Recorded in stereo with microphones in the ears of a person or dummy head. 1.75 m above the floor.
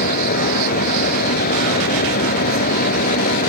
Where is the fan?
45° left (ahead or behind).